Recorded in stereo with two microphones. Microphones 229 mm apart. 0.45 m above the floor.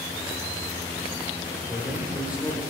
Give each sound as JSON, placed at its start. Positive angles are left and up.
{"t": 1.7, "sound": "a man speaking", "side_deg": -5, "distance_m": 1.8}